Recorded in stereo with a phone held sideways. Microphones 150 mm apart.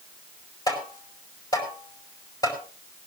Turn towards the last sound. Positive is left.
turn(degrees=25)  # may be behind; listen again after turning